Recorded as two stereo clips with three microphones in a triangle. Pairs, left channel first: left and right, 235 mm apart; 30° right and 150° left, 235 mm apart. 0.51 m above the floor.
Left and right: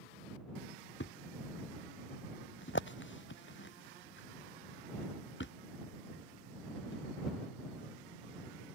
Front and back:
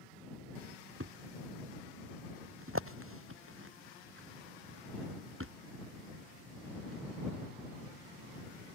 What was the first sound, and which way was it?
A thud, 125° left.